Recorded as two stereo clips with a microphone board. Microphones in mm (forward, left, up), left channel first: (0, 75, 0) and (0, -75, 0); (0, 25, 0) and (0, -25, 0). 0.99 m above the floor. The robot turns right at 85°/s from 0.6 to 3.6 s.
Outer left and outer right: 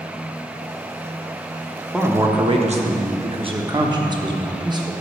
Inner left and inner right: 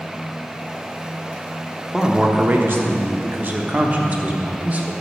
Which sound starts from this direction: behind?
A man speaking, at 1.9 s.